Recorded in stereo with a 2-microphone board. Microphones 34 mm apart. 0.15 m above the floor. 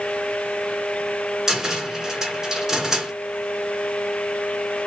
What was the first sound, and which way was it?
A cupboard door, 15° right (ahead or behind).